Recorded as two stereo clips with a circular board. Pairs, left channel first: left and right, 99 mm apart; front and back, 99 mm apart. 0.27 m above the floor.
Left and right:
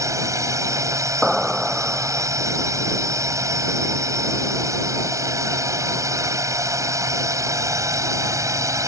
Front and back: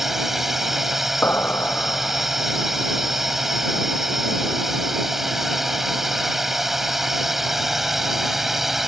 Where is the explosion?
15° right.